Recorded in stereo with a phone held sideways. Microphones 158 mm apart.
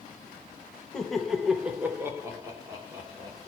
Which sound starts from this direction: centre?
Laughter, at 0.9 s.